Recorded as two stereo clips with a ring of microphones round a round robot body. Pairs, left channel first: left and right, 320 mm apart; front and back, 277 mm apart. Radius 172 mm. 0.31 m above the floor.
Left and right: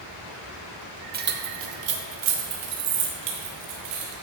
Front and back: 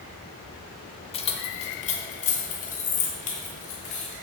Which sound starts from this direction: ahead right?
Keys jangling, at 1.1 s.